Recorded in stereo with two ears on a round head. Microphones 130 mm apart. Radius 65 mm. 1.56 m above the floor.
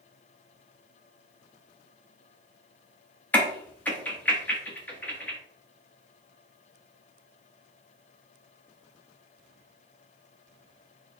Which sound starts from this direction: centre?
A crack, at 3.3 s.